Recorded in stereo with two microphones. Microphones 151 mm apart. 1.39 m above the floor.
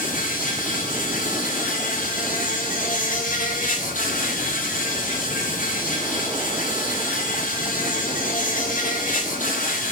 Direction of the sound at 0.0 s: 55° left (ahead or behind).